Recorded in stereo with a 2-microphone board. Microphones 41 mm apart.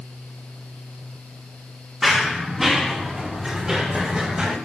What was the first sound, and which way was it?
Running footsteps, 5° right (ahead or behind).